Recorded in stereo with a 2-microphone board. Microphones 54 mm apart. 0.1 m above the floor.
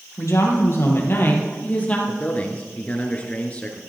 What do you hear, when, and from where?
0.2 s a woman speaking: 60° left (ahead or behind), 3 m; by 2.0 s 25° left (ahead or behind), 2.5 m
2.1 s a man speaking: 25° left (ahead or behind), 1.2 m